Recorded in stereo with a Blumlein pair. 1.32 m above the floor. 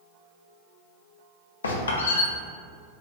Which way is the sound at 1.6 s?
70° left.